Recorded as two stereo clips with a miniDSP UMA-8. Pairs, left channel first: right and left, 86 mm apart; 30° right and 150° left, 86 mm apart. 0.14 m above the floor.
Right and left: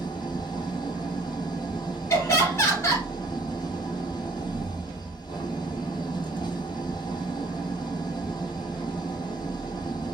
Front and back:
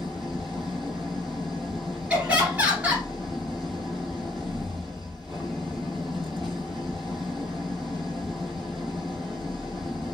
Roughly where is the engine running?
Behind right.